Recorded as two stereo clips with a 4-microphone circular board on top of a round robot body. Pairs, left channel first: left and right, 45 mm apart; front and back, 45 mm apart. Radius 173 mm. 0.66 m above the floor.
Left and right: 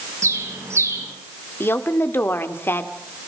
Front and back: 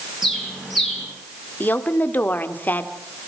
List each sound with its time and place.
0.2 s a bird: 95° right, 7 m
1.6 s a woman speaking: 50° left, 1.9 m